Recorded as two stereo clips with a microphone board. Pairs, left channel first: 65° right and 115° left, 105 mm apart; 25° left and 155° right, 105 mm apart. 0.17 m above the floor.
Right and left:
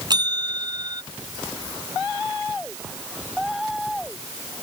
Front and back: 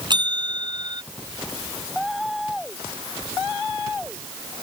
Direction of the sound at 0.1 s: 160° left.